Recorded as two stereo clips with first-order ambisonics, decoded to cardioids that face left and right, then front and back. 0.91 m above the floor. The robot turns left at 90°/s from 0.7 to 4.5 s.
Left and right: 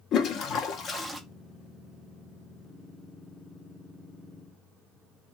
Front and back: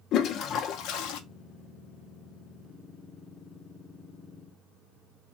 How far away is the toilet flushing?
About 0.5 m.